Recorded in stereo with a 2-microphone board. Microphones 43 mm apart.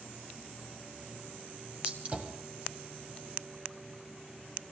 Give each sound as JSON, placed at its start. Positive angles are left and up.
{"t": 1.8, "sound": "a gunshot", "side_deg": -25, "distance_m": 2.0}